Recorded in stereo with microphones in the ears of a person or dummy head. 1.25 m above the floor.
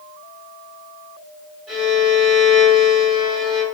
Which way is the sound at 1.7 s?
5° right (ahead or behind).